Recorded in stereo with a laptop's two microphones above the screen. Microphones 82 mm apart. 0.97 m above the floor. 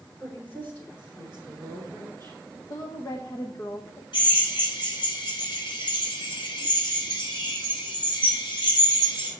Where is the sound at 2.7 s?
50° left (ahead or behind), 0.8 m.